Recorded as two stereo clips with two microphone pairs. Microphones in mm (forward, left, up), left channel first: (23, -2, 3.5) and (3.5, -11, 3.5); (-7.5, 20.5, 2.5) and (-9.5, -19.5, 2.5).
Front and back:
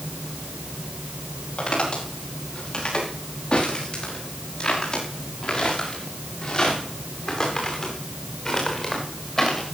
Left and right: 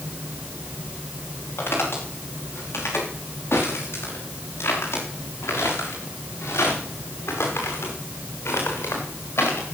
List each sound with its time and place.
1.6 s footsteps: 65° left, 9.5 m; by 9.7 s 95° left, 6 m